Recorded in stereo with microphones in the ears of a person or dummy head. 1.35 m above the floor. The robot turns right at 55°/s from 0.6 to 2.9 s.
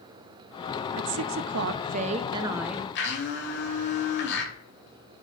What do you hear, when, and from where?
1.0 s a woman speaking: 95° right, 0.8 m; by 2.9 s 10° left, 0.8 m
3.0 s a blender: 65° left (ahead or behind), 3 m